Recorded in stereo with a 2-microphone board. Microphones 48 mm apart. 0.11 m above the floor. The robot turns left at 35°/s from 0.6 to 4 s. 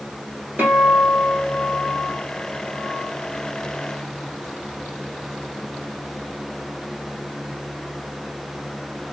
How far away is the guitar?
About 1.1 m.